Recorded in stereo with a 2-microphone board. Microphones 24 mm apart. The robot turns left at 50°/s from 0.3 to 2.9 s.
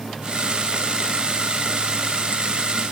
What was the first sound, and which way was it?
Only background noise.